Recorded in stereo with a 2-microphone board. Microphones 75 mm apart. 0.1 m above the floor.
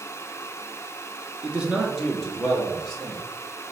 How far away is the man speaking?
About 1.2 m.